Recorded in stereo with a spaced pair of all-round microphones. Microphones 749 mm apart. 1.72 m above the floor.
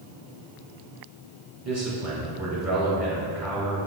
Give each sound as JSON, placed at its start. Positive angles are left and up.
{"t": 1.6, "sound": "a man speaking", "side_deg": -20, "distance_m": 2.5}